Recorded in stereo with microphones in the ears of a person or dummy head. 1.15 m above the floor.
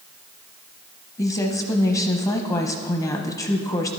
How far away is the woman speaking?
About 0.8 m.